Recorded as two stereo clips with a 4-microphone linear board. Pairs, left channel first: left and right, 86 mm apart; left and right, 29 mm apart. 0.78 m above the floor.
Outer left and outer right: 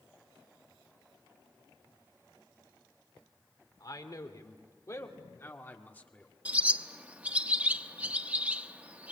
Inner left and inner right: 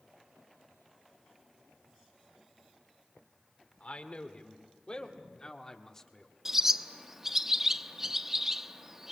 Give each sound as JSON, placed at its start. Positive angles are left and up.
{"t": 3.8, "sound": "a man speaking", "side_deg": 50, "distance_m": 2.5}
{"t": 6.5, "sound": "a bird", "side_deg": -20, "distance_m": 0.9}